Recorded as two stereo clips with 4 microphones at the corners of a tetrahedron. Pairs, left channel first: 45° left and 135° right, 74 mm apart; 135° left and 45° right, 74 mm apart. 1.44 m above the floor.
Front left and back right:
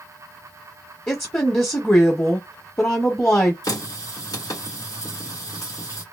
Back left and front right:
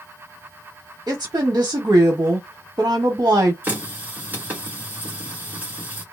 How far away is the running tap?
About 1.7 m.